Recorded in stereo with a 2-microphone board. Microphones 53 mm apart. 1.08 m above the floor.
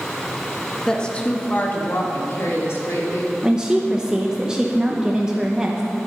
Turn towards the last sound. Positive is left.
turn(degrees=-15)  # may be behind; listen again after turning